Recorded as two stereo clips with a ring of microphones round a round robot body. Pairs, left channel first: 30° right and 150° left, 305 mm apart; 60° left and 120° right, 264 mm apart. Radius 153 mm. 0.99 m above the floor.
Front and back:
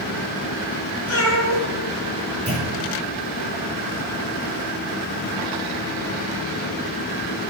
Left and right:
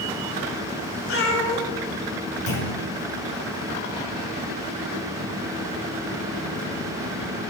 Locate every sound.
1.1 s a cat meowing: 20° left, 3 m
2.5 s a clunk: 75° left, 4.5 m